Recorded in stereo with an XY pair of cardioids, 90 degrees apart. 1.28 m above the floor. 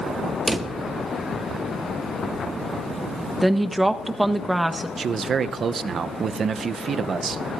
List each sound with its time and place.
0.5 s a drawer: 20° right, 1.4 m
3.4 s a woman speaking: 15° right, 1.4 m
5.0 s a man speaking: 55° right, 0.8 m